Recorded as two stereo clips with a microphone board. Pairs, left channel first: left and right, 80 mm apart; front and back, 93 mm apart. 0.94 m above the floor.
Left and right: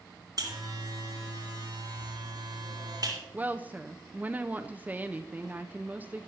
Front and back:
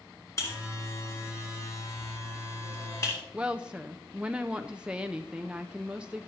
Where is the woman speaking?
120° right, 0.5 m.